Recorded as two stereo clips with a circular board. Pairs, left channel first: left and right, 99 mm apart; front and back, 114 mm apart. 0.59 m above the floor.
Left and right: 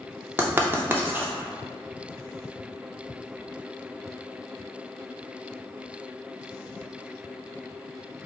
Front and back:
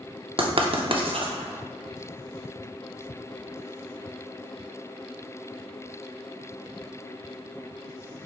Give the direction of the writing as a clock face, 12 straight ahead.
5 o'clock.